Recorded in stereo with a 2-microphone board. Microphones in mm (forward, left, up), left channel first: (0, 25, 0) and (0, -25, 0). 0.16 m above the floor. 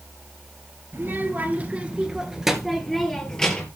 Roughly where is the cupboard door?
No cupboard door in this recording.